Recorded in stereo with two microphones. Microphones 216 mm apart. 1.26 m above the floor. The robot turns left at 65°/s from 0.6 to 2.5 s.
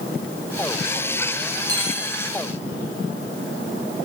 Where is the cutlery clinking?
15° right (ahead or behind), 7.5 m; by 2.1 s 45° right (ahead or behind), 7.5 m.